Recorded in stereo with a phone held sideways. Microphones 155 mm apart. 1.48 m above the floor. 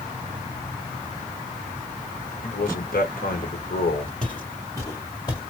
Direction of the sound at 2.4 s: 70° left (ahead or behind).